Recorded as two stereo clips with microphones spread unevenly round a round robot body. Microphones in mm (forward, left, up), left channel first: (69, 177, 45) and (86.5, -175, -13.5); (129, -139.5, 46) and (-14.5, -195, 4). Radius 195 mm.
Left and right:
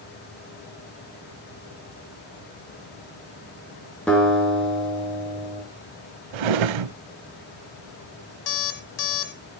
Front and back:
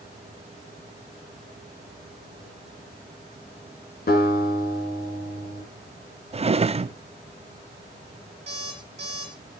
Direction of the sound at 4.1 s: 5° left.